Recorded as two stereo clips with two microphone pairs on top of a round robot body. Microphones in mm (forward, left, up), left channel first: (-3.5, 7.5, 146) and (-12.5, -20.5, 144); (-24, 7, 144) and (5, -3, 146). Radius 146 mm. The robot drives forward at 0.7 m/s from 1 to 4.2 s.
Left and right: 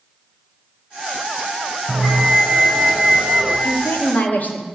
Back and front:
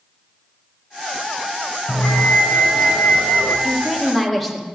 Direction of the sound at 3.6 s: 65° left.